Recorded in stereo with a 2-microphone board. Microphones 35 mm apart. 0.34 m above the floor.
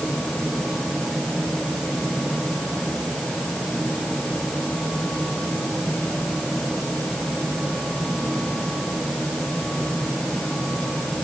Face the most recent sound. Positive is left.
No sound to turn to.